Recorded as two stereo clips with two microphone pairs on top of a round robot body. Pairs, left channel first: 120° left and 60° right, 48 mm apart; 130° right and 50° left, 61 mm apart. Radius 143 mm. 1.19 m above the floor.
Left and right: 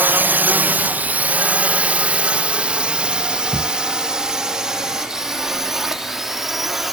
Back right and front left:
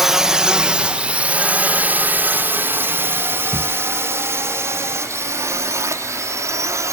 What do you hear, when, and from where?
0.0 s a drone: 30° right; by 6.9 s 25° left
3.5 s a thud: 170° right